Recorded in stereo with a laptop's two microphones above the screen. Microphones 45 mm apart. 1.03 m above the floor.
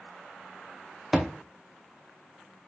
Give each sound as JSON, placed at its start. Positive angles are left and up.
{"t": 1.1, "sound": "a thud", "side_deg": -10, "distance_m": 0.7}